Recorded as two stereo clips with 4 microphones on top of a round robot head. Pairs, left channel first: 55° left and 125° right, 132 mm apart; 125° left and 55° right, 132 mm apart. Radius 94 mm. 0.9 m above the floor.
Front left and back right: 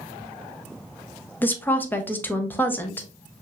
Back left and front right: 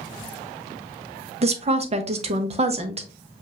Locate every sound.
1.4 s a woman speaking: 20° right, 0.9 m